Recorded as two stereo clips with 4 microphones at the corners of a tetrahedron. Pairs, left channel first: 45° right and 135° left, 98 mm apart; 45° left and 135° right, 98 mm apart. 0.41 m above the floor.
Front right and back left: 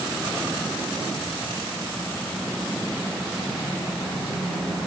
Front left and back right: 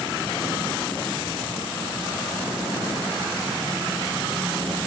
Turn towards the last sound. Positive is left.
No sound to turn to.